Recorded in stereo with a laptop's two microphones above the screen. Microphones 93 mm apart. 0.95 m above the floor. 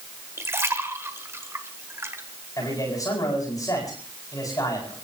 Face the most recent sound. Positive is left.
turn(degrees=35)  # may be behind; listen again after turning